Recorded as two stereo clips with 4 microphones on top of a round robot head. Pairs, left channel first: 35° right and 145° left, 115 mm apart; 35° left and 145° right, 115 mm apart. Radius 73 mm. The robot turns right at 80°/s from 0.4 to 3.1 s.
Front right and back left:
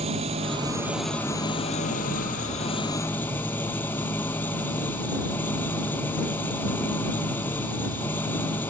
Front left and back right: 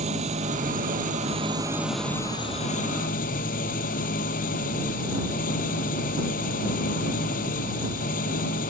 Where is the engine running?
Straight behind; by 8.7 s 40° left.